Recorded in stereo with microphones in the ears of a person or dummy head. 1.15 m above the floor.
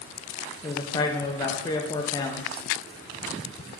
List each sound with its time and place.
0.6 s a man speaking: 15° left (ahead or behind), 0.5 m